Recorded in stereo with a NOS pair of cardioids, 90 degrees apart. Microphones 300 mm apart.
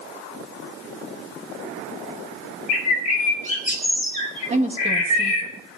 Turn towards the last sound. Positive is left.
turn(degrees=-20)